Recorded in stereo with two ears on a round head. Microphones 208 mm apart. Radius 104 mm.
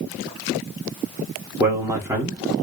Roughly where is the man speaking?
Centre.